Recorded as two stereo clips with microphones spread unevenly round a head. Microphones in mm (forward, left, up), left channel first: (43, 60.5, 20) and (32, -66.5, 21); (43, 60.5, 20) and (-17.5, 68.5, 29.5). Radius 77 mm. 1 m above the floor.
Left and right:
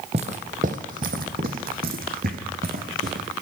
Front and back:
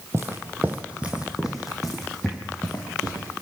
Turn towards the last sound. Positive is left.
turn(degrees=-90)